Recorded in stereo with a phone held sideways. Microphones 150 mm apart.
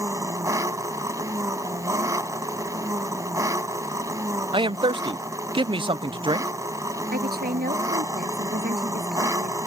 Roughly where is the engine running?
Centre.